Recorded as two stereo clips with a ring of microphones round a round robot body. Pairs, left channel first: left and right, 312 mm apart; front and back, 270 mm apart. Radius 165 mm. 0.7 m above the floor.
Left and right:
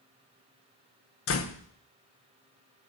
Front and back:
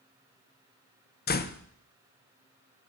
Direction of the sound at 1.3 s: 50° left.